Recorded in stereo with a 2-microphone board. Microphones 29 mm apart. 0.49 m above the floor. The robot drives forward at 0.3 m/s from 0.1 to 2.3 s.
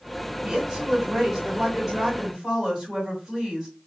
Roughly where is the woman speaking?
Centre.